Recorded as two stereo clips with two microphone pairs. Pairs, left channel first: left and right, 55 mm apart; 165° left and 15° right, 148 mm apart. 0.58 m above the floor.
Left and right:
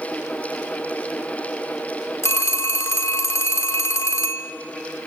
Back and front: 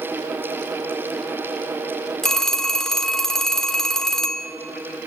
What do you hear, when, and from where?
2.2 s a phone ringing: 75° left, 1.0 m